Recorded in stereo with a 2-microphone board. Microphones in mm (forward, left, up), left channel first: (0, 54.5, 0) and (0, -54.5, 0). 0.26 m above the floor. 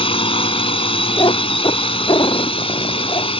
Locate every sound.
0.0 s a drone: 60° left (ahead or behind)
1.2 s a cat meowing: 45° left (ahead or behind)